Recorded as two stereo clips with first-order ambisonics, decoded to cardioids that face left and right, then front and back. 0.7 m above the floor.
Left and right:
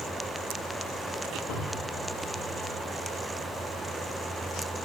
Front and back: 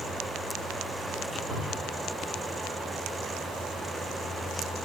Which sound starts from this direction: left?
A cupboard door, at 1.5 s.